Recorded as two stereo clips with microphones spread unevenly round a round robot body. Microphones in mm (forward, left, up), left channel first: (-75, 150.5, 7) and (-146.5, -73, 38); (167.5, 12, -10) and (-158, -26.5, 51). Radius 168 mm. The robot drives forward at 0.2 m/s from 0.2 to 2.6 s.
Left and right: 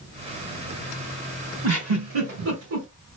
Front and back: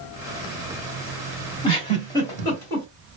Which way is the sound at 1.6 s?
65° right.